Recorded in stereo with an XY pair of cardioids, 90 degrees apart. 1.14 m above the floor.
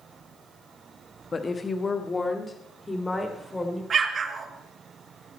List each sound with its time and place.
1.3 s a woman speaking: 35° left, 1.5 m; by 3.8 s 20° left, 4 m
3.9 s an explosion: 55° right, 1.7 m